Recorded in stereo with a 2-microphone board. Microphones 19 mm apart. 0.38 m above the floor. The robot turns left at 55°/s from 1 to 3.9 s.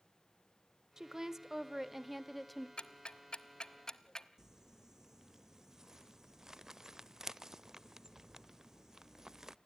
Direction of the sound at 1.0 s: 30° right (ahead or behind).